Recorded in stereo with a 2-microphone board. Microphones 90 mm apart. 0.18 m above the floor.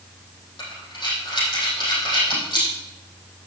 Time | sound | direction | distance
0.6 | breathing | 55° left (ahead or behind) | 5 m